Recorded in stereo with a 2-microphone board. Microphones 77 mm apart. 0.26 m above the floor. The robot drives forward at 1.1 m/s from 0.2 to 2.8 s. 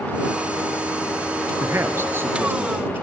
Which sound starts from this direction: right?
A man speaking, at 1.6 s.